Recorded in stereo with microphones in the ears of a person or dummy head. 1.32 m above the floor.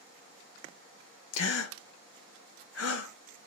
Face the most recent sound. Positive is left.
turn(degrees=85)